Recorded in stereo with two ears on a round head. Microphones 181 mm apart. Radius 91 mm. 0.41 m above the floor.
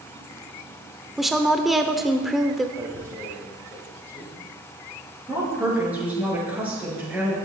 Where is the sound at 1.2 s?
Centre (ahead or behind), 0.9 m.